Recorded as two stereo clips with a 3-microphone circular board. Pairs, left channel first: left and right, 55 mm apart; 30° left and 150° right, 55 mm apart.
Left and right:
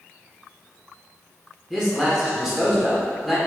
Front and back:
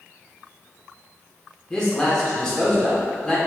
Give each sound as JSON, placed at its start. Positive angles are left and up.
{"t": 1.7, "sound": "a man speaking", "azimuth_deg": -20, "distance_m": 0.8}